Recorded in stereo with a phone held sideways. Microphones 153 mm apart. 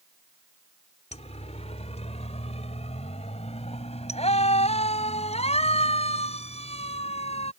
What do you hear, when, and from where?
1.1 s a siren: 45° left (ahead or behind)